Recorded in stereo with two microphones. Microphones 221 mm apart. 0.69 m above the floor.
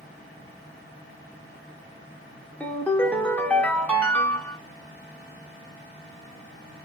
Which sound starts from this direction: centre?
A ringtone, at 2.6 s.